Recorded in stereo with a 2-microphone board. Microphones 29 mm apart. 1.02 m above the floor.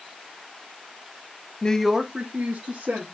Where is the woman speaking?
30° left (ahead or behind), 0.8 m; by 3.0 s 70° right (ahead or behind), 1.9 m.